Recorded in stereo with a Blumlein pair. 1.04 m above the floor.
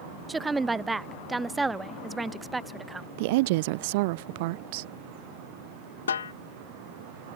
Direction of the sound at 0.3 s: 10° right.